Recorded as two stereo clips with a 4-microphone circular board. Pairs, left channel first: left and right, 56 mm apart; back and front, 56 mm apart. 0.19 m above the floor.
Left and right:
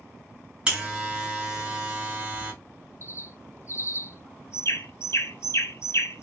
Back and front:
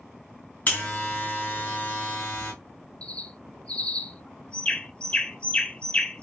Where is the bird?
115° left, 0.6 m.